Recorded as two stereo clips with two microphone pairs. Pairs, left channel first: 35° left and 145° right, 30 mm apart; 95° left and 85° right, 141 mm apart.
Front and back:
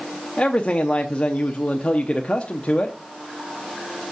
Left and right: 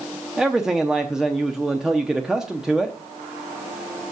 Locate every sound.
0.4 s a man speaking: straight ahead, 0.7 m